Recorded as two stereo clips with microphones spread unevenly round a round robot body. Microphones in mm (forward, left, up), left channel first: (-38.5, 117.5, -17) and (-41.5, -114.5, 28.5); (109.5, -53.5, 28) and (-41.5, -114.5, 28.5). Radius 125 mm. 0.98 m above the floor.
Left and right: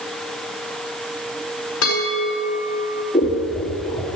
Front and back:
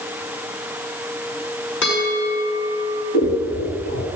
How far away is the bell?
About 5.5 m.